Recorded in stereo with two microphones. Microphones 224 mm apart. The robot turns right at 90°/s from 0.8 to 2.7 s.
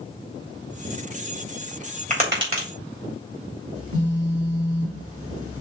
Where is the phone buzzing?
85° right, 1.8 m.